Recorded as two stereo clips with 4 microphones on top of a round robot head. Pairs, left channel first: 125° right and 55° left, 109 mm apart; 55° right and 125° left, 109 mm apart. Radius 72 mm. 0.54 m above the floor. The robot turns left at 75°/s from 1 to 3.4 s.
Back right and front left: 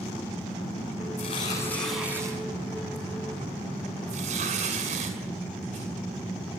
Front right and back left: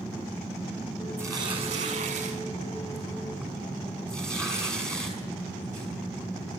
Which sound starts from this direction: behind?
Tearing paper, at 1.2 s.